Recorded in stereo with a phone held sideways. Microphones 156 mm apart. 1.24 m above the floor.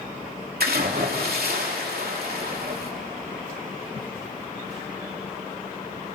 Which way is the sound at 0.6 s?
80° right.